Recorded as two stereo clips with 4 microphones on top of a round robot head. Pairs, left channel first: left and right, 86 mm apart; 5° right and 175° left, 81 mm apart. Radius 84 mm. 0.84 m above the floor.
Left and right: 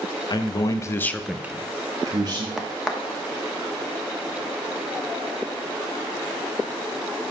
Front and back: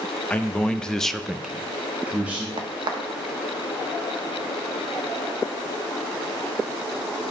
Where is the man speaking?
65° left, 1.1 m; by 2.5 s 115° right, 1.3 m.